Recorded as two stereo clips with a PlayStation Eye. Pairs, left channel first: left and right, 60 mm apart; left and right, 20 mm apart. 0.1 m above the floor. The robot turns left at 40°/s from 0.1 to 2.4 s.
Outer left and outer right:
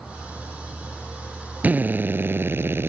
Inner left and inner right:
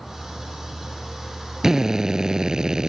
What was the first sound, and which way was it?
A drill, 45° right.